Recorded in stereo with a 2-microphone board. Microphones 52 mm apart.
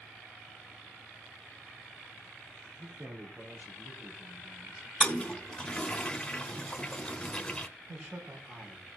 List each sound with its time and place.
2.8 s a man speaking: 55° right (ahead or behind), 3 m; by 4.9 s 40° right (ahead or behind), 5 m
5.0 s a toilet flushing: 20° left (ahead or behind), 1.2 m
7.9 s a man speaking: 45° right (ahead or behind), 4 m